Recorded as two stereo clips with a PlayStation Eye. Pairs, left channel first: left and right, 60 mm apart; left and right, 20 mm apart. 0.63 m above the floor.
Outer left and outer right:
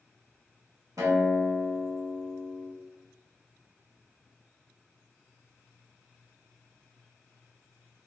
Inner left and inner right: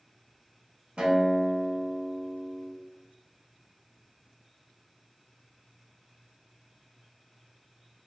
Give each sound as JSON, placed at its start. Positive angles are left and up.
{"t": 1.0, "sound": "a guitar", "side_deg": -70, "distance_m": 0.8}